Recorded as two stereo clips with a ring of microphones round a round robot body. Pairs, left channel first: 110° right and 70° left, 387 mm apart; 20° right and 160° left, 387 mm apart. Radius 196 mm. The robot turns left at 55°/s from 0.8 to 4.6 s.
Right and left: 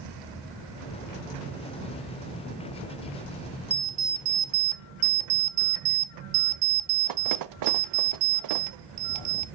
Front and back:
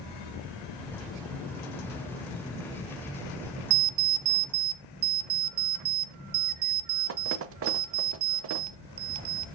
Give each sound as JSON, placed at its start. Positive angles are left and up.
{"t": 3.7, "sound": "an alarm clock", "azimuth_deg": 155, "distance_m": 0.6}